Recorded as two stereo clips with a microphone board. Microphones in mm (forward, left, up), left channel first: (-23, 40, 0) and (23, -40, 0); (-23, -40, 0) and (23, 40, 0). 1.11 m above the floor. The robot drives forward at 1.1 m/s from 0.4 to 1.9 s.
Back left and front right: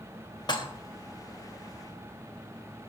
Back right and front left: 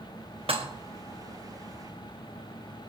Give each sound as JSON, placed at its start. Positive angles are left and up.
{"t": 0.5, "sound": "dishes clattering", "azimuth_deg": 80, "distance_m": 1.1}